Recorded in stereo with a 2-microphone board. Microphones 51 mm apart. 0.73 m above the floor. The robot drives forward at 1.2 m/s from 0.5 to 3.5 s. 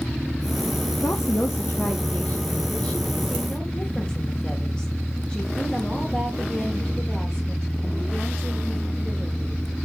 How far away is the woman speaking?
About 1.0 m.